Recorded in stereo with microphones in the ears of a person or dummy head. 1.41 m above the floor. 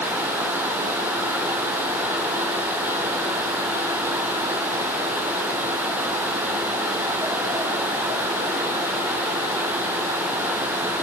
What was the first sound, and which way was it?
Only background noise.